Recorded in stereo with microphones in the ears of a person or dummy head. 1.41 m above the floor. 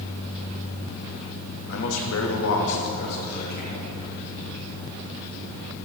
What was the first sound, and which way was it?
A man speaking, 60° left (ahead or behind).